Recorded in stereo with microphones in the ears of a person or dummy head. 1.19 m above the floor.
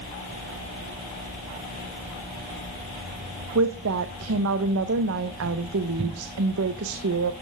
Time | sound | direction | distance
3.5 | a woman speaking | 65° right (ahead or behind) | 1.0 m